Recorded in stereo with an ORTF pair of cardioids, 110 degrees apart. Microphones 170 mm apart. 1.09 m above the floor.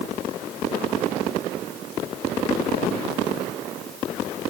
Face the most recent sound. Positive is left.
No sound to turn to.